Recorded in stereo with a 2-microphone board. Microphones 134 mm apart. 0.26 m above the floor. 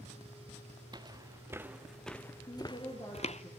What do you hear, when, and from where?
0.9 s footsteps: 35° right (ahead or behind), 1.4 m; by 3.4 s 55° left (ahead or behind), 1.3 m
2.5 s a woman speaking: 35° left (ahead or behind), 7.5 m